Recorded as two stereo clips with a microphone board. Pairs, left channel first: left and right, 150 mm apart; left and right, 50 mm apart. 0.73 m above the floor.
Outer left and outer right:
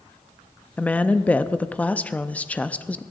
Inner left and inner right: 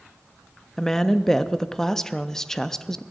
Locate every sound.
0.8 s a woman speaking: 10° left (ahead or behind), 0.5 m